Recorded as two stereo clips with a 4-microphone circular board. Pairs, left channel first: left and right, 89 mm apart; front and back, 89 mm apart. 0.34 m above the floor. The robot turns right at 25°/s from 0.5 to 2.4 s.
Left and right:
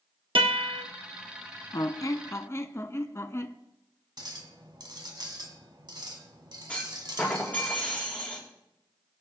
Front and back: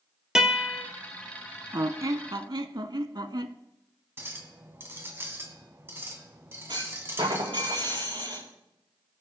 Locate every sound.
0.3 s a guitar: 100° right, 1.4 m; by 0.8 s 90° right, 1.4 m
1.7 s a squeak: 130° left, 0.6 m; by 3.5 s 145° left, 0.6 m
4.2 s a clink: 120° right, 1.7 m
6.7 s a clunk: 165° left, 5 m